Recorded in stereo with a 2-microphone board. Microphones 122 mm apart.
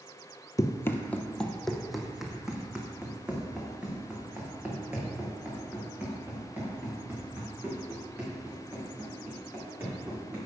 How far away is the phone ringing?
I don't hear a phone ringing.